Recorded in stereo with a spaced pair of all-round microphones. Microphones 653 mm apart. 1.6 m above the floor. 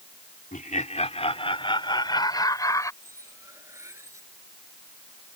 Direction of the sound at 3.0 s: 5° right (ahead or behind).